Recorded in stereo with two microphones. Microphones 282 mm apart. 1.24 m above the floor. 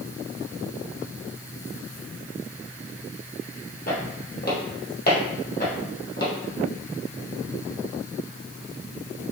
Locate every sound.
3.9 s footsteps: 30° left (ahead or behind), 1.4 m; by 6.3 s 35° left (ahead or behind), 1.9 m